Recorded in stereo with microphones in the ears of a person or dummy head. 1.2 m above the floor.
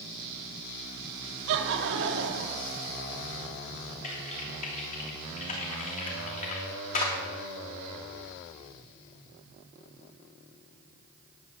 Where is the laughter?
65° right (ahead or behind), 2.5 m.